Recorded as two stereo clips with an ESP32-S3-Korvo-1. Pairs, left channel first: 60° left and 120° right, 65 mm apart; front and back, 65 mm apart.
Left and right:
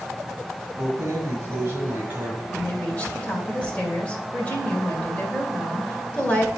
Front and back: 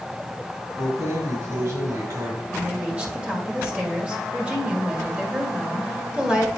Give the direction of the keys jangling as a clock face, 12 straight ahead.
5 o'clock.